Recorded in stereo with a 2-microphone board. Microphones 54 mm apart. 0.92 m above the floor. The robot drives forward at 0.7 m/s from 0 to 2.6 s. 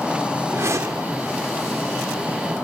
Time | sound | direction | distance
0.5 | a whoosh | 60° right (ahead or behind) | 1.0 m